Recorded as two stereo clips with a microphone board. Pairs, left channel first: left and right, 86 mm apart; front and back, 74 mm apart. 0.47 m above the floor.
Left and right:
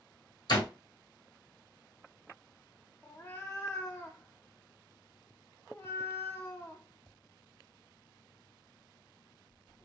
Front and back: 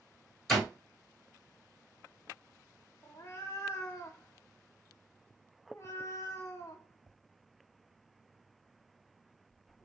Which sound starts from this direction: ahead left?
A cat meowing, at 3.0 s.